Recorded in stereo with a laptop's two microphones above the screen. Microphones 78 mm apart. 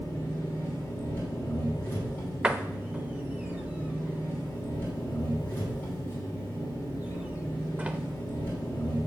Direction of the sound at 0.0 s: 25° left (ahead or behind).